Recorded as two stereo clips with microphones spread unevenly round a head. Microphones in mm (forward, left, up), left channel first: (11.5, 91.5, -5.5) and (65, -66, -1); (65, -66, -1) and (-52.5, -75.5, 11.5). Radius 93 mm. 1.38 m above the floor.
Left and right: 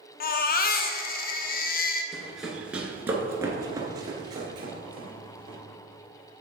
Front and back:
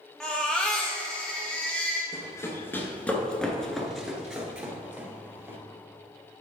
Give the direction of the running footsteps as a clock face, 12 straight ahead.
11 o'clock.